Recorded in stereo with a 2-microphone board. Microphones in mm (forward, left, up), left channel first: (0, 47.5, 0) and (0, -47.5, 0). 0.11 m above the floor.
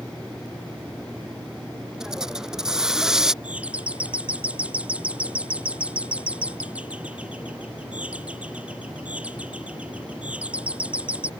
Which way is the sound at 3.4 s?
15° right (ahead or behind).